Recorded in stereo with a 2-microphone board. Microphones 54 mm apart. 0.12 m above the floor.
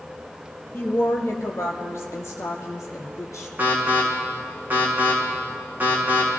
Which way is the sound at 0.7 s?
40° left (ahead or behind).